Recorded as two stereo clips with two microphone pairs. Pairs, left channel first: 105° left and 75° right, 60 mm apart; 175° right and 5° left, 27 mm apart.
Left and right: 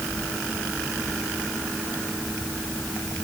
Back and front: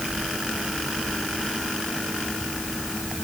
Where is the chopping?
No chopping in this recording.